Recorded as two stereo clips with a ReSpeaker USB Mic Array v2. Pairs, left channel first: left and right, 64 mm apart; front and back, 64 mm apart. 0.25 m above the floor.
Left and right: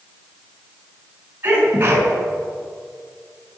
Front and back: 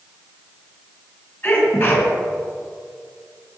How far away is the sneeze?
About 3.5 m.